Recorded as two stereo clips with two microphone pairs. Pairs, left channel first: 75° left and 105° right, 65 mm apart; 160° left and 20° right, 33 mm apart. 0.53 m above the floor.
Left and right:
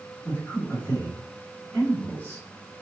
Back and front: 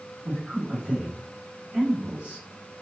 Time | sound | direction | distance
0.2 | a man speaking | 15° left | 1.9 m